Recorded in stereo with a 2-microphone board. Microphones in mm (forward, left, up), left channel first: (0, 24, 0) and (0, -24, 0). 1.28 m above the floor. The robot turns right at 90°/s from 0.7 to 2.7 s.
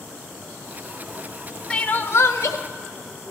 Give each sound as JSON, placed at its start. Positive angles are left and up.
{"t": 1.7, "sound": "crying", "azimuth_deg": 20, "distance_m": 0.6}